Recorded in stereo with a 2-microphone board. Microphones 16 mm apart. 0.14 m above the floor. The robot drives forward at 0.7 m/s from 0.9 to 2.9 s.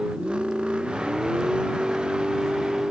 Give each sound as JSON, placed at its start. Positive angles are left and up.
{"t": 0.0, "sound": "a vehicle", "side_deg": -85}